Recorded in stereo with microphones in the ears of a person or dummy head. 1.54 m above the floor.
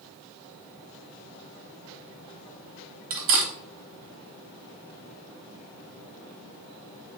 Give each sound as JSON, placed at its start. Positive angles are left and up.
{"t": 3.1, "sound": "cutlery clinking", "side_deg": -30, "distance_m": 0.8}